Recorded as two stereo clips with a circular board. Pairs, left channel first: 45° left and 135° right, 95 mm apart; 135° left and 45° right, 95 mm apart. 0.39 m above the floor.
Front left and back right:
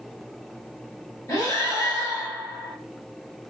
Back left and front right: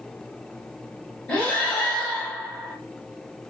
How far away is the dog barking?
I don't hear a dog barking.